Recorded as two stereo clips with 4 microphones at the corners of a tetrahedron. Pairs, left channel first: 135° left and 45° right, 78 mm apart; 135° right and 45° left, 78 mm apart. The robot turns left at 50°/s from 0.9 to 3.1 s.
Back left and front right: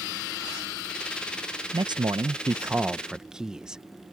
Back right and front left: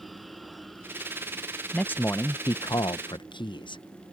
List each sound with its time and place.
1.7 s a man speaking: 60° right; by 3.8 s 125° right